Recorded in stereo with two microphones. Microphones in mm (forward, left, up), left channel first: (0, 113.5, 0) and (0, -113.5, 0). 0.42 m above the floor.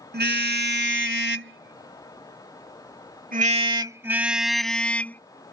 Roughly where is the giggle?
I don't hear a giggle.